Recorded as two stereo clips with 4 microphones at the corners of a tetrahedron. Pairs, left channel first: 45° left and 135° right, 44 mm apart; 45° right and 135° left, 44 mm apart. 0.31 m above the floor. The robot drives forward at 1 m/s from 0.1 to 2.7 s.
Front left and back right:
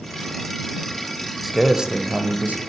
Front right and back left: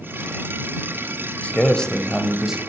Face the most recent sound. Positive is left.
turn(degrees=-155)